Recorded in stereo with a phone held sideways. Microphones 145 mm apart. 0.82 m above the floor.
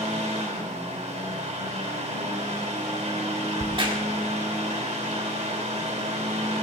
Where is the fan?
50° right (ahead or behind), 2.5 m.